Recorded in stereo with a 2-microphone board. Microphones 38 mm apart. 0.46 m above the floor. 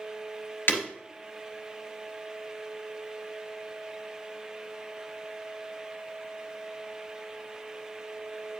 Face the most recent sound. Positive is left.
turn(degrees=65)  # may be behind; listen again after turning